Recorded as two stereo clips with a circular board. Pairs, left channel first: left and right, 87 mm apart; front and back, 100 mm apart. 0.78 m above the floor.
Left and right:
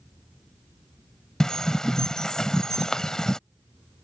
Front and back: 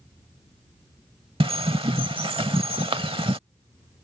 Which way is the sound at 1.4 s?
170° left.